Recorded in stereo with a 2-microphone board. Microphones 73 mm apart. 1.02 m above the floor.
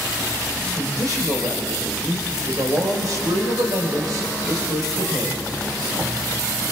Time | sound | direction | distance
0.8 | a man speaking | 60° right (ahead or behind) | 4 m